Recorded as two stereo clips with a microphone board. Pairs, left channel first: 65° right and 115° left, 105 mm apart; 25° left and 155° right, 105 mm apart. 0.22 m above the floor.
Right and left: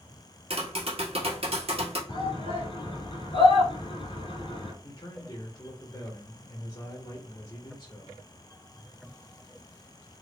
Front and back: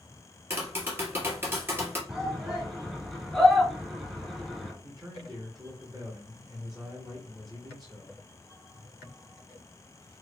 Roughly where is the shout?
Right.